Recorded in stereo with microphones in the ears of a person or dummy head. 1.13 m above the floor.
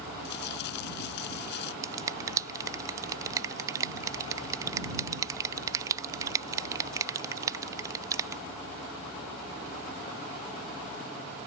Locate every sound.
0.2 s crumpling: 65° left (ahead or behind)
1.8 s a finger snap: 15° right (ahead or behind)